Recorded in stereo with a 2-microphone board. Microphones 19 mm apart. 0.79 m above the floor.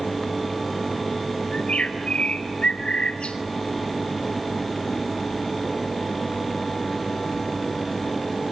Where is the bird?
75° left (ahead or behind), 3.5 m.